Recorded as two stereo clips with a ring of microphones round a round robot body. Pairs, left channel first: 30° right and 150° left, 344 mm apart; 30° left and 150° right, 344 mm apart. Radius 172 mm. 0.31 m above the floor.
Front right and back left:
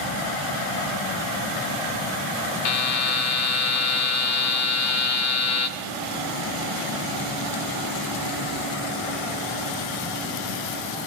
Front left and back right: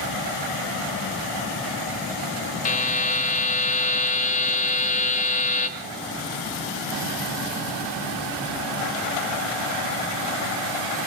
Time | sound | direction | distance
2.6 | a buzzer | 30° right | 1.4 m